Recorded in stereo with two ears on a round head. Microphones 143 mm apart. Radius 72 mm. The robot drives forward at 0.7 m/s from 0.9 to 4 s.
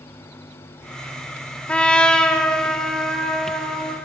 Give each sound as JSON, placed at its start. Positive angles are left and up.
{"t": 1.7, "sound": "a trumpet", "side_deg": 5, "distance_m": 0.8}